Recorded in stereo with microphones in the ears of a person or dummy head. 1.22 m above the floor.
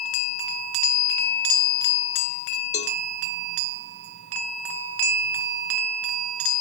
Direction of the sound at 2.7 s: 40° left (ahead or behind).